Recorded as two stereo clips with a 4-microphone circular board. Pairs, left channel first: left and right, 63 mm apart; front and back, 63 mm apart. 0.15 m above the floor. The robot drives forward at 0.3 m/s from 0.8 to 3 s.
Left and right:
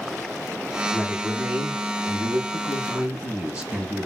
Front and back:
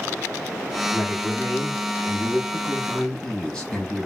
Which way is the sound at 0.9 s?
25° right.